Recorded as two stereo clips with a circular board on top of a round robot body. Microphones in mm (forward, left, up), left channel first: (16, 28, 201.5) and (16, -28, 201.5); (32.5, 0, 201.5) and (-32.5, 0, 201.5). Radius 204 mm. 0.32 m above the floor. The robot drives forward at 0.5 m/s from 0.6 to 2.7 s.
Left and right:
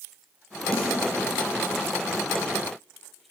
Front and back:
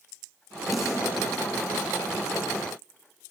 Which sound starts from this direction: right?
A snare drum, at 0.7 s.